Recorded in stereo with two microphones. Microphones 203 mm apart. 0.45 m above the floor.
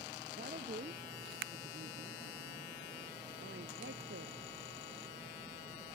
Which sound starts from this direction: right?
A woman speaking, at 0.4 s.